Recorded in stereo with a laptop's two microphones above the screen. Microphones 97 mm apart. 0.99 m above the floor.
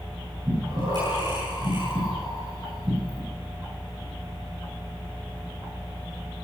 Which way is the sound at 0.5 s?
50° right (ahead or behind).